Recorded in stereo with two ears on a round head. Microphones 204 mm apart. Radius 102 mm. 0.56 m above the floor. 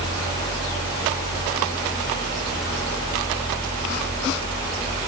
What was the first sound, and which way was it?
Only background noise.